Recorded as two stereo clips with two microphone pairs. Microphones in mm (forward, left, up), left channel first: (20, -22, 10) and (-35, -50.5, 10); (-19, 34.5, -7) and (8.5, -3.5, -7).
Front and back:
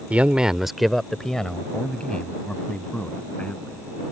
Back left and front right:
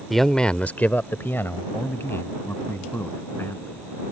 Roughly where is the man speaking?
Behind right.